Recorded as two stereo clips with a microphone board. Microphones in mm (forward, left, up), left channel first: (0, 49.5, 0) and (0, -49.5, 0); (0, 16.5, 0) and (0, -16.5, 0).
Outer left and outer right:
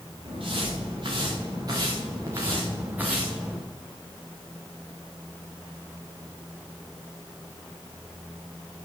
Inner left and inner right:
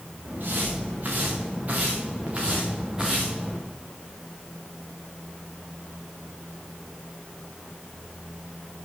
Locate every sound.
0.2 s footsteps: 60° right (ahead or behind), 5.5 m; by 3.6 s 5° right (ahead or behind), 4 m